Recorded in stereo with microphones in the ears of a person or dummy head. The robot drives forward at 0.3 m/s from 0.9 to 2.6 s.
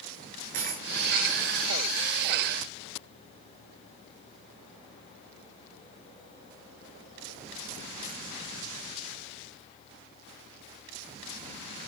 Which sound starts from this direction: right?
A dropped coin, at 0.5 s.